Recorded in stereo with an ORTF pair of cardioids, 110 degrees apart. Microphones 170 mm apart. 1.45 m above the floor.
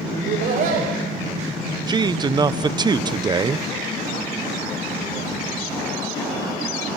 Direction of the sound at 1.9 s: 25° right.